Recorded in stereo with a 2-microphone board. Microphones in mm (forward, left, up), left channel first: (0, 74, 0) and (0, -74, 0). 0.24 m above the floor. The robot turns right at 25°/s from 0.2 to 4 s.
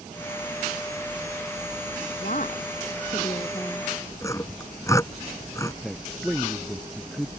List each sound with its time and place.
2.2 s a woman speaking: 115° left; by 3.9 s 155° left
4.2 s sawing: 20° left (ahead or behind)
5.8 s a man speaking: centre (ahead or behind)